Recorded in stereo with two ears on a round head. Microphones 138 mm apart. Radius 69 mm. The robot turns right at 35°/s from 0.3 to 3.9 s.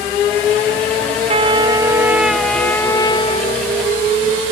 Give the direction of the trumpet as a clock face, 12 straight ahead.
1 o'clock.